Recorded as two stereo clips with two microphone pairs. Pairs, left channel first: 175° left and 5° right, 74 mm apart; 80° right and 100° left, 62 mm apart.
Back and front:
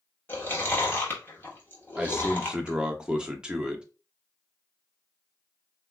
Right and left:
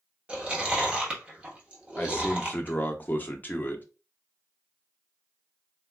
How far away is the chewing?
About 1.0 m.